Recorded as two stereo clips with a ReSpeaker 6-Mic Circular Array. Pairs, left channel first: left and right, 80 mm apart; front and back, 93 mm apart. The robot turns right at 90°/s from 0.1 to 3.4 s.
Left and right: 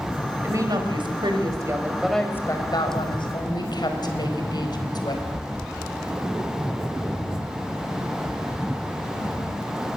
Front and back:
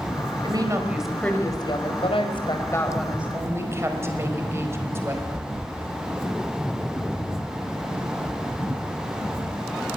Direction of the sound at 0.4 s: 150° right.